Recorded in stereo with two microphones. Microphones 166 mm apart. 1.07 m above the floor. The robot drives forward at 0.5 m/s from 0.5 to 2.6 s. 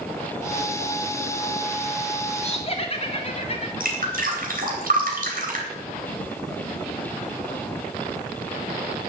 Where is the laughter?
40° left (ahead or behind), 1.3 m; by 3.7 s 35° left (ahead or behind), 1.3 m.